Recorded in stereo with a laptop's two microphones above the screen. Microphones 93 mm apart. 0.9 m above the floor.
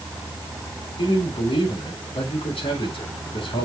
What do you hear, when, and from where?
1.0 s a man speaking: 80° left, 3.5 m